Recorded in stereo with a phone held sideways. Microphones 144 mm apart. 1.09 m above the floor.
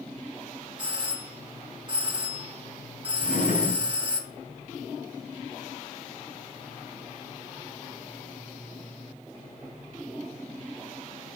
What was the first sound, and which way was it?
A doorbell, 35° right (ahead or behind).